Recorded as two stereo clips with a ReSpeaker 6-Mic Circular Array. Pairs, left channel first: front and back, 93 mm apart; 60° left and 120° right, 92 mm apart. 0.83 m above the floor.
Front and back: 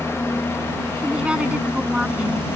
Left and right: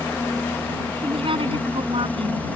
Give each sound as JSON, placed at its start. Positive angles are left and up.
{"t": 0.0, "sound": "a helicopter", "azimuth_deg": 20}
{"t": 1.0, "sound": "a woman speaking", "azimuth_deg": -100}